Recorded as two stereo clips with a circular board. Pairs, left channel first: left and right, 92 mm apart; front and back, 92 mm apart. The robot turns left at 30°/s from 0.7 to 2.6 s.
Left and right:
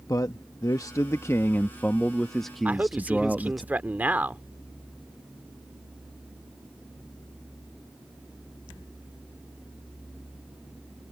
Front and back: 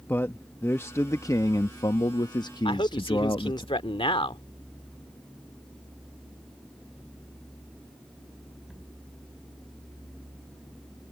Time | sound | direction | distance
0.1 | a man speaking | 60° left | ?
2.6 | a man speaking | 15° right | ?